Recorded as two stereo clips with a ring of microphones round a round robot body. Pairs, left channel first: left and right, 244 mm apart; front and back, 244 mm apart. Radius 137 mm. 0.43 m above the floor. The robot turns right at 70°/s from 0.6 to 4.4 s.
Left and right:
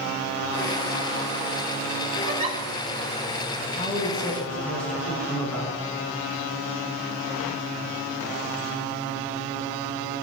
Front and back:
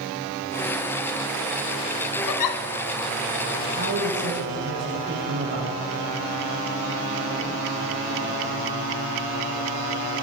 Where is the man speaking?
130° left, 5 m; by 5.8 s 175° left, 5 m.